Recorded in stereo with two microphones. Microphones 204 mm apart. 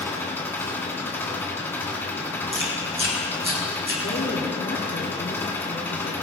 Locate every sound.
0.0 s an engine running: 10° left (ahead or behind), 2.0 m
2.5 s chewing: 25° right (ahead or behind), 3.5 m
4.0 s a woman speaking: 60° left (ahead or behind), 4 m